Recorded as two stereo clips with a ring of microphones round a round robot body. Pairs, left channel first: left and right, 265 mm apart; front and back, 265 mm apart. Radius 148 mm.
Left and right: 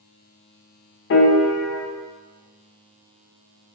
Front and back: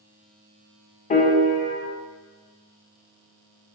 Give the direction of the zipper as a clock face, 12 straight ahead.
I don't hear a zipper.